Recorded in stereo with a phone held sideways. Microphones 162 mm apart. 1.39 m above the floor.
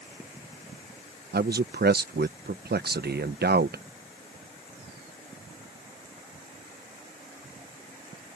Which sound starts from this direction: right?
A man speaking, at 1.3 s.